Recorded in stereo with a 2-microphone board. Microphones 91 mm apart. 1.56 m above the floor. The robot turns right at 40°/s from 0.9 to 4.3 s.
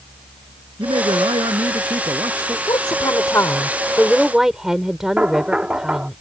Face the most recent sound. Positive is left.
turn(degrees=-15)  # may be behind; listen again after turning